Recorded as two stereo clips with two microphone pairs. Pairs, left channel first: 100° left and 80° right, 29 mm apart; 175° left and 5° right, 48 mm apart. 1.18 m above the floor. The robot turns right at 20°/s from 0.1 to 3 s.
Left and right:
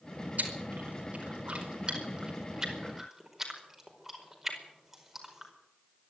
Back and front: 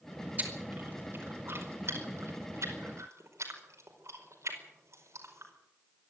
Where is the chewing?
55° right, 5 m; by 5.5 s 5° right, 5 m.